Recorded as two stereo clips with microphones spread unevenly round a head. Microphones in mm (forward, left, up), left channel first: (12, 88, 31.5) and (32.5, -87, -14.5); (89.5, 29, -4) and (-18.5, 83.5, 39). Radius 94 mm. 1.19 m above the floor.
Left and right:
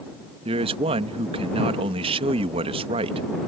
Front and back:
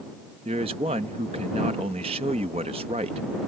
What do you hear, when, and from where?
0.5 s a man speaking: 145° right